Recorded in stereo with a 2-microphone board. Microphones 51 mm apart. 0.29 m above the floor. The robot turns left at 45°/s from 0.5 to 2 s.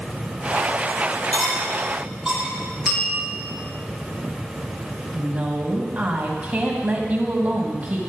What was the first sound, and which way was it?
Cutlery clinking, 20° left (ahead or behind).